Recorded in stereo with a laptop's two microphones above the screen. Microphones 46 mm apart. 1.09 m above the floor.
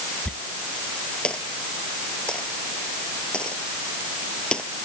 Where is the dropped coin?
20° left (ahead or behind).